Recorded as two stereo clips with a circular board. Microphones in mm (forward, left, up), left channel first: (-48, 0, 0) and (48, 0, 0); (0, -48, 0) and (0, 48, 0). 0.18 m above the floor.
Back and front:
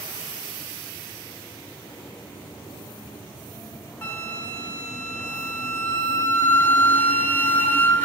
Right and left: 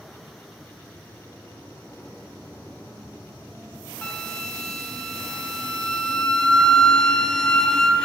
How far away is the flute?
About 0.9 m.